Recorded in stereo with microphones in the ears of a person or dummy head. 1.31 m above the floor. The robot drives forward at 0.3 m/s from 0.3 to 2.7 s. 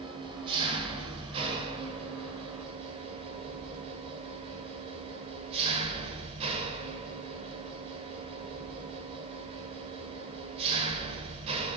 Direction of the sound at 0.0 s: 30° right (ahead or behind).